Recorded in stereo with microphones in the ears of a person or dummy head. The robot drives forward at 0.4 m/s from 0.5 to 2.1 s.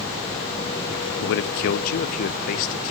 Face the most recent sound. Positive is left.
turn(degrees=45)  # may be behind; listen again after turning